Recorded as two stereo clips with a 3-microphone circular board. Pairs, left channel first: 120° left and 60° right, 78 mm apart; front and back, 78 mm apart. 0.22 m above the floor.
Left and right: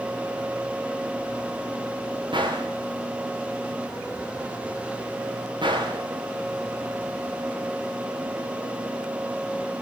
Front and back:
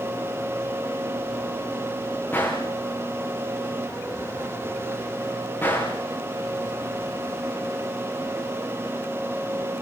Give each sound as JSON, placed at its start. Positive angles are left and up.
{"t": 2.3, "sound": "a gunshot", "azimuth_deg": -60, "distance_m": 9.5}